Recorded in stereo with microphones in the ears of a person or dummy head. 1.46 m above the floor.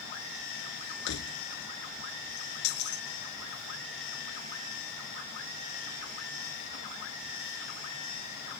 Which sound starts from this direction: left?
Keys jangling, at 1.1 s.